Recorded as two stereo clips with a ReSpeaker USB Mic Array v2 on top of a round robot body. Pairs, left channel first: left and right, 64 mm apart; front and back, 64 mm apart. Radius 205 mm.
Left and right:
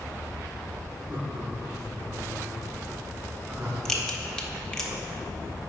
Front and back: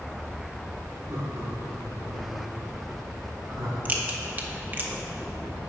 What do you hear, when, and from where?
1.1 s laughter: 140° right, 1.9 m; by 3.8 s 130° right, 5 m
3.9 s a crack: 160° left, 1.4 m